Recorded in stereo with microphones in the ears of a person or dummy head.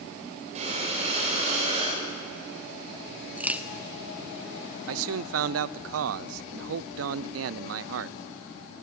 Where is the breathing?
35° right (ahead or behind), 9.5 m.